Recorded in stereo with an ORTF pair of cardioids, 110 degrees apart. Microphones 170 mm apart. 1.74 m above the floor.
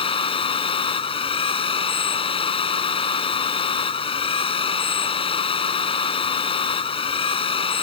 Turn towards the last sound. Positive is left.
turn(degrees=35)